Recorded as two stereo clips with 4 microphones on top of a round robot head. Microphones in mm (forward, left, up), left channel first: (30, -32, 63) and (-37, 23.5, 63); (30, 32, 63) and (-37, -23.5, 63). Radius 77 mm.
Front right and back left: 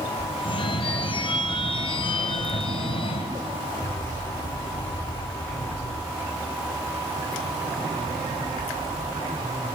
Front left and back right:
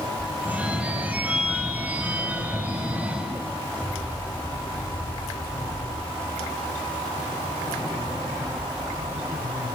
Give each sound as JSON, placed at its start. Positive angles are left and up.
{"t": 0.4, "sound": "a phone ringing", "azimuth_deg": -65, "distance_m": 3.0}